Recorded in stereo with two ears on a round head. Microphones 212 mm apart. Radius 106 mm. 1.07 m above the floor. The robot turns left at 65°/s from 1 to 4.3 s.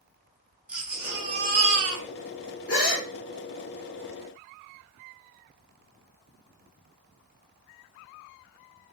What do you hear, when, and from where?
0.7 s a baby crying: 5° right, 0.7 m; by 2.0 s 75° right, 0.7 m
2.7 s a gasp: 40° left (ahead or behind), 1.7 m; by 3.1 s 10° left (ahead or behind), 1.7 m